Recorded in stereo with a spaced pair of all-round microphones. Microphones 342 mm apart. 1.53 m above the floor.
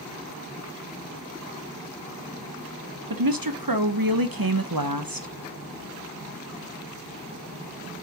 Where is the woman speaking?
80° right, 1.4 m.